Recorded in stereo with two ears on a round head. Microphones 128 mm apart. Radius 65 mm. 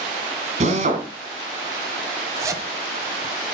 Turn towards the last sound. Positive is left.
turn(degrees=-20)  # may be behind; listen again after turning